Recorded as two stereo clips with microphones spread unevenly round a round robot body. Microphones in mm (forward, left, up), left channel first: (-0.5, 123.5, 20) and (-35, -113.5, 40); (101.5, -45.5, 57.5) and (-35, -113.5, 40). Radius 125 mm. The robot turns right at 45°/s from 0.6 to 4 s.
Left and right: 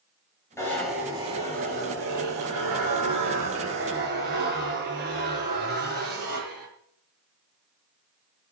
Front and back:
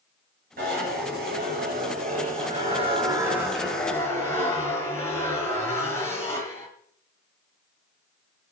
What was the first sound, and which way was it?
A zipper, 160° left.